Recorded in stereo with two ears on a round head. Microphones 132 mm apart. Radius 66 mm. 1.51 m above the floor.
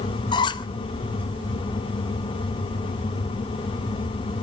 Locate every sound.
0.3 s a squeak: 30° left (ahead or behind), 0.9 m